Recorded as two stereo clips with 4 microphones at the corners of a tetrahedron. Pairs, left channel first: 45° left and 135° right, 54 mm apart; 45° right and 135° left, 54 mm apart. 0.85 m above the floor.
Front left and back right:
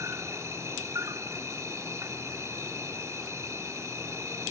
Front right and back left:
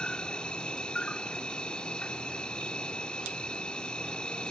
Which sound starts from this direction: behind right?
An insect, at 0.0 s.